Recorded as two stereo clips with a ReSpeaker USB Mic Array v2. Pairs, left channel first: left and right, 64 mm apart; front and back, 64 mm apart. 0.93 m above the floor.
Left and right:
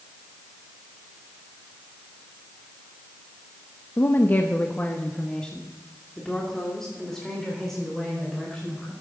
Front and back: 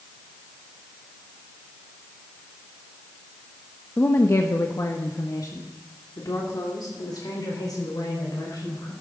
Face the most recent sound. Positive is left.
turn(degrees=5)